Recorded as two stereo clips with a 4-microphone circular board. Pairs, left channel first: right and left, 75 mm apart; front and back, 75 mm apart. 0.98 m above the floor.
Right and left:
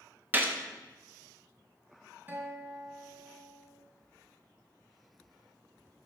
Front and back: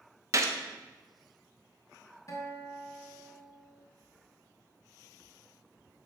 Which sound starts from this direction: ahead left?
A guitar, at 2.3 s.